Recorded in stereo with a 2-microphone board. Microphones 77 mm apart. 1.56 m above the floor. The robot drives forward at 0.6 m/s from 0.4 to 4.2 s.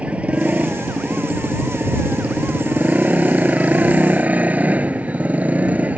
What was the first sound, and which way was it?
A motorcycle, 15° right (ahead or behind).